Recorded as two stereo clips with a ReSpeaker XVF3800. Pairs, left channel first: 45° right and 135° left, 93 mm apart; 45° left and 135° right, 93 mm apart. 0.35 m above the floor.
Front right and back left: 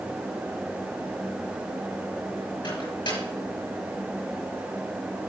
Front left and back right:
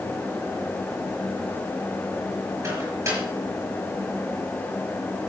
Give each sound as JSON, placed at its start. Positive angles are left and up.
{"t": 2.6, "sound": "a microwave", "azimuth_deg": -75, "distance_m": 5.0}